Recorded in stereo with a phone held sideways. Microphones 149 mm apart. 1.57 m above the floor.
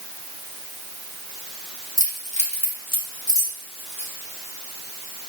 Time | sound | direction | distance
2.0 | keys jangling | 60° left (ahead or behind) | 1.8 m